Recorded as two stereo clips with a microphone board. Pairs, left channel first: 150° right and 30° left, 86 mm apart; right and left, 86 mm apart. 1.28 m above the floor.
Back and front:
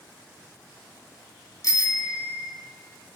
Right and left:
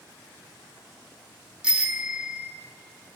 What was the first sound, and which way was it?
A bicycle bell, 165° left.